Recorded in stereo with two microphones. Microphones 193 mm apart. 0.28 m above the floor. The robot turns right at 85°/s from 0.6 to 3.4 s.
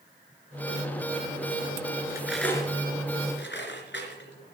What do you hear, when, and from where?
2.1 s cutlery clinking: 20° right (ahead or behind), 2.5 m; by 4.5 s 75° left (ahead or behind), 2.5 m